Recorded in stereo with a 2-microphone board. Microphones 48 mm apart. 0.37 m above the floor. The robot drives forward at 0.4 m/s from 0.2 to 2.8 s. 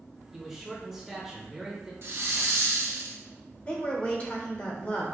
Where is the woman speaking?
30° left (ahead or behind), 0.9 m.